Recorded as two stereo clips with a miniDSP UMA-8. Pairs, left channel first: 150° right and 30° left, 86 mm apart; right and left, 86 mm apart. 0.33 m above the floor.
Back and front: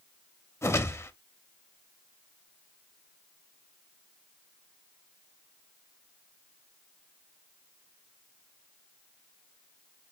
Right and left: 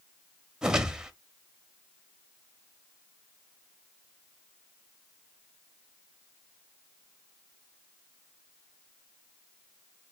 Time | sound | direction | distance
0.6 | a whoosh | 170° left | 0.7 m